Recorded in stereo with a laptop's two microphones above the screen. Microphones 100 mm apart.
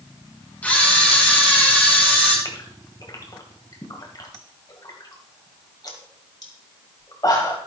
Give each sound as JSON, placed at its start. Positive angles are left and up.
{"t": 0.6, "sound": "a camera shutter", "side_deg": 15, "distance_m": 3.5}
{"t": 2.5, "sound": "a gasp", "side_deg": 40, "distance_m": 1.8}